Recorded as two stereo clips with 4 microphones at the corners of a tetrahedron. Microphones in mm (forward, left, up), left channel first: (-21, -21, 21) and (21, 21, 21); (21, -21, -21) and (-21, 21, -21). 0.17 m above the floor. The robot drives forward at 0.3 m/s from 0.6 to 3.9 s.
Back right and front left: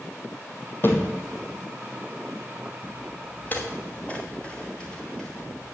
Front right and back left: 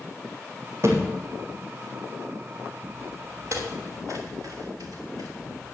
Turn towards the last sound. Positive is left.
turn(degrees=140)